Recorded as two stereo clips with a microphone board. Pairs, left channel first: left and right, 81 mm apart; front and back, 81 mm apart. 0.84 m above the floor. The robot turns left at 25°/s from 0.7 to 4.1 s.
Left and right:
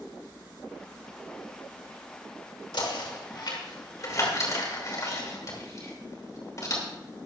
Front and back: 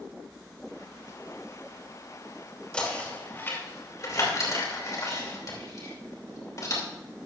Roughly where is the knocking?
Left.